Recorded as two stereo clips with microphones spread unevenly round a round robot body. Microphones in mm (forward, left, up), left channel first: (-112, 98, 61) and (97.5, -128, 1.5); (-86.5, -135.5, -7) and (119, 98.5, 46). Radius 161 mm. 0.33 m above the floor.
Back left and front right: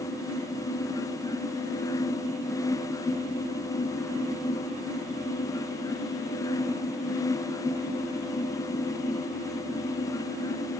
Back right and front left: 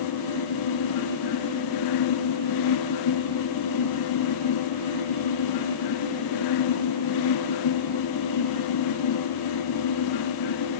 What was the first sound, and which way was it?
Only background noise.